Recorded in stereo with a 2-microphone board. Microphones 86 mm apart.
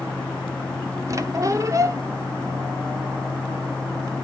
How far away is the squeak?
About 0.7 m.